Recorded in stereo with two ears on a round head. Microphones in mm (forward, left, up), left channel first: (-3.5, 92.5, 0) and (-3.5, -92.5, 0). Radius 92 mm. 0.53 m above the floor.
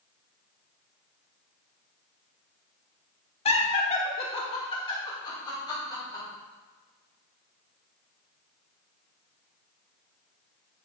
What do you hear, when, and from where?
3.5 s laughter: 30° left (ahead or behind), 1.3 m; by 6.2 s 20° left (ahead or behind), 4 m